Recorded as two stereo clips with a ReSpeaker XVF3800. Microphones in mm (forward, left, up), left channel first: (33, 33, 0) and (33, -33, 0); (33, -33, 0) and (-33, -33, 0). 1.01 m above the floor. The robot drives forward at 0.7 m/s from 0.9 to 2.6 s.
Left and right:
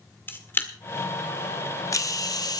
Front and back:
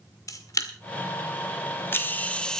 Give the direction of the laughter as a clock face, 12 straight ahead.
I don't hear laughter.